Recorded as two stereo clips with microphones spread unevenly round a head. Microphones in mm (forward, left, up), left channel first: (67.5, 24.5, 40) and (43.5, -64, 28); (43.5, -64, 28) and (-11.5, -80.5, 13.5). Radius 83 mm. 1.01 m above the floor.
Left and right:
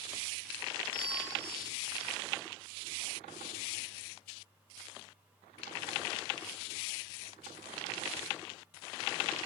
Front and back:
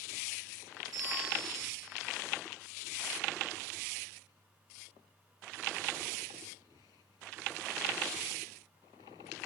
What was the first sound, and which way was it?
A bell, 145° left.